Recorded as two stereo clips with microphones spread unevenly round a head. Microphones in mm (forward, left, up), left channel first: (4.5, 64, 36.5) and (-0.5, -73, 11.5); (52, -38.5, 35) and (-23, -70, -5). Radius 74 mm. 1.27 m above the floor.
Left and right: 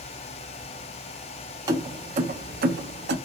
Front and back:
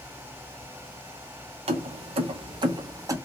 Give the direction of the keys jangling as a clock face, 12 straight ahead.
5 o'clock.